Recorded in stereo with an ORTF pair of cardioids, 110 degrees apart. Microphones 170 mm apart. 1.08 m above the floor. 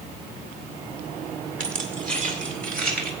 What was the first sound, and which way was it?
Keys jangling, 45° right.